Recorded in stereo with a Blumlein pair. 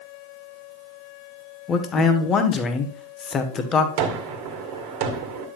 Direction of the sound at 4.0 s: 45° right.